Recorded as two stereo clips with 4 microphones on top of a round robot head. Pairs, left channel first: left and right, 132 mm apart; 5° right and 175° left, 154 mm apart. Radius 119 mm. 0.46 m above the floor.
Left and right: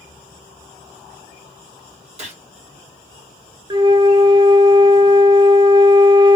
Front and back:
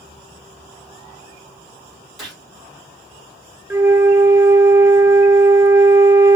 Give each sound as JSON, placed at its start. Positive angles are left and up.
{"t": 2.2, "sound": "a gunshot", "azimuth_deg": -95, "distance_m": 2.0}
{"t": 3.7, "sound": "a flute", "azimuth_deg": -120, "distance_m": 0.7}